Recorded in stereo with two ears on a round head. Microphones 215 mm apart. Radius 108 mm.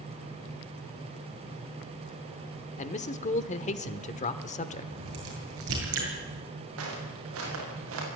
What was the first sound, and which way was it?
A man speaking, 30° left (ahead or behind).